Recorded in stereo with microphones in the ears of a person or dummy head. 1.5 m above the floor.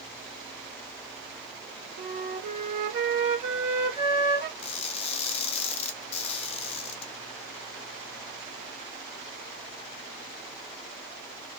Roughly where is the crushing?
Left.